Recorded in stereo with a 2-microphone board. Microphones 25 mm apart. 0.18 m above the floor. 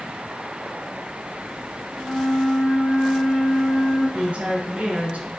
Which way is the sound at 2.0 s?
15° left (ahead or behind).